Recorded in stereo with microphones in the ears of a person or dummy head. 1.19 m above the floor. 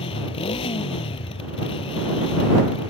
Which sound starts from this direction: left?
A motorcycle, at 0.0 s.